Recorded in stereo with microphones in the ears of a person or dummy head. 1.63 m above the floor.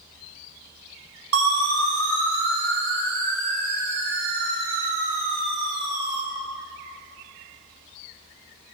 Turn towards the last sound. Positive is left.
turn(degrees=-15)  # may be behind; listen again after turning